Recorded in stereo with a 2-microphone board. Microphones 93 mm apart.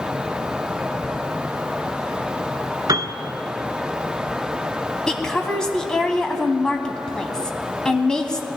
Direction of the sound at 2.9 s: 45° right (ahead or behind).